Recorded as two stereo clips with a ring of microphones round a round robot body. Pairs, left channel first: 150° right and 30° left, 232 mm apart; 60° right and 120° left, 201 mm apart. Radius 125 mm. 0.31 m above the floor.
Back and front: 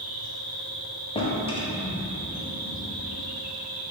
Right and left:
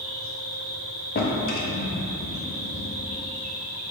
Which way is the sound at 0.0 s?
75° left.